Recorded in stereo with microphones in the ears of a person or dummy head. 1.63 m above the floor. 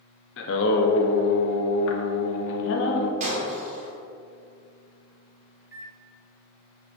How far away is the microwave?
About 1.0 m.